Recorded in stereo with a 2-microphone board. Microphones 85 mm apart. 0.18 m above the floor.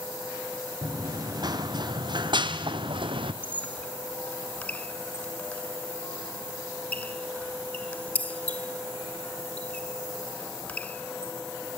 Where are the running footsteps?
45° right (ahead or behind), 2.5 m; by 3.3 s 85° right, 1.8 m.